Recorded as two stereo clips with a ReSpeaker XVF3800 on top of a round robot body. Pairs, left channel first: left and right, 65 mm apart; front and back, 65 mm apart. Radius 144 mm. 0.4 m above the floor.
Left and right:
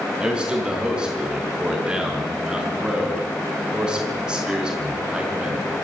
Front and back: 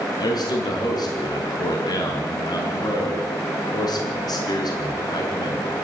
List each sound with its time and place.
0.2 s a man speaking: 10° right, 5.5 m